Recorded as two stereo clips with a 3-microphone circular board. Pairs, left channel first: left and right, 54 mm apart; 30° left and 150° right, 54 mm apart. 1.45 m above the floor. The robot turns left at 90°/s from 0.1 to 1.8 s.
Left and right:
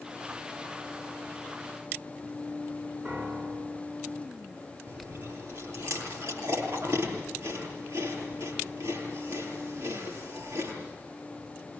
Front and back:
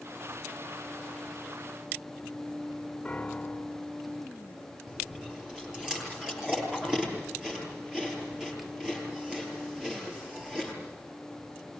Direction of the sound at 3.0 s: 40° right.